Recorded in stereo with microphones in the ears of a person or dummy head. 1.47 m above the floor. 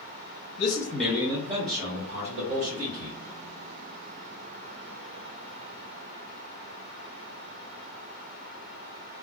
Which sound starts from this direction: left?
A man speaking, at 0.6 s.